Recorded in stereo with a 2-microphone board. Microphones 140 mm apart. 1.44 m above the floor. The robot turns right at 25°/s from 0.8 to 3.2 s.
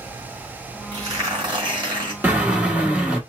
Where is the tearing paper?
135° right, 1.4 m; by 2.1 s 105° right, 1.4 m.